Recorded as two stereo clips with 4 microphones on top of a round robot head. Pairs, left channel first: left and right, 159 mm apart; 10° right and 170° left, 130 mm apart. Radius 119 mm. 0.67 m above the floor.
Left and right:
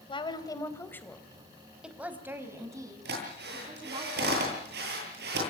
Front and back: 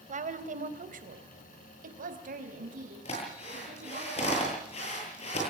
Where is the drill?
60° right, 10 m.